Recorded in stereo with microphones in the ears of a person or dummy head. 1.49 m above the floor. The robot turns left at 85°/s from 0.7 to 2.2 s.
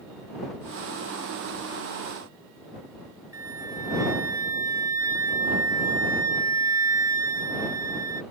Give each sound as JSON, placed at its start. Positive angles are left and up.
{"t": 3.3, "sound": "a flute", "side_deg": -15}